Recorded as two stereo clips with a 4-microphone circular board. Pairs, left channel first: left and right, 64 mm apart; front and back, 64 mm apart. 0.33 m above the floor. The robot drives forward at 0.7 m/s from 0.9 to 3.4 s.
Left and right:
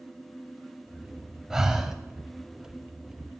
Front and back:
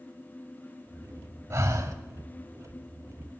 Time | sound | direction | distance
1.5 | breathing | 170° right | 0.8 m